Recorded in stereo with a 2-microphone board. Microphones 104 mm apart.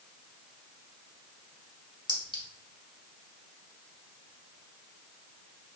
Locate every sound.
2.1 s a clink: 50° left (ahead or behind), 0.9 m